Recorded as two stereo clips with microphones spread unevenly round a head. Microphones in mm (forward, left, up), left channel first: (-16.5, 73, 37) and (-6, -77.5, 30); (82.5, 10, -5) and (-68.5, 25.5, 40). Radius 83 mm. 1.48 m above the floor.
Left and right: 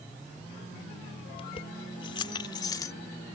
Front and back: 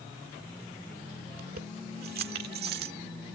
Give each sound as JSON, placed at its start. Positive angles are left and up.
{"t": 1.3, "sound": "keys jangling", "azimuth_deg": 150}